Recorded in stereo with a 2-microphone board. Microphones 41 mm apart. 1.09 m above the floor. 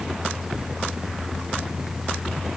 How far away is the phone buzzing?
I don't hear a phone buzzing.